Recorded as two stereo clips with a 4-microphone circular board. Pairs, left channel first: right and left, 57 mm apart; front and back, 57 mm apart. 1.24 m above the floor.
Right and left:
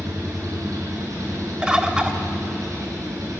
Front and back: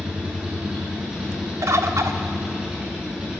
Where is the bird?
165° left, 1.3 m.